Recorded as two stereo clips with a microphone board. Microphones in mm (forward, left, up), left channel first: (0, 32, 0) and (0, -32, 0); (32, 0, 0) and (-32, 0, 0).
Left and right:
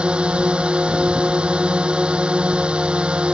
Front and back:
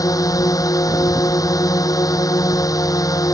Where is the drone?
15° right.